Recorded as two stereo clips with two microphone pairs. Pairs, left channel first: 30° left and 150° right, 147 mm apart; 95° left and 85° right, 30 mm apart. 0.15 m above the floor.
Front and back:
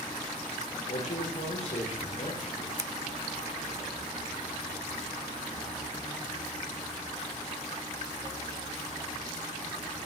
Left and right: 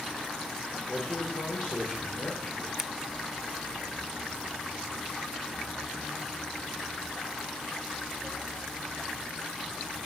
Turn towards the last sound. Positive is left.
turn(degrees=-140)